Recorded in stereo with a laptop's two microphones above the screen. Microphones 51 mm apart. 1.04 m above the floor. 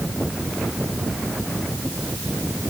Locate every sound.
Only background noise.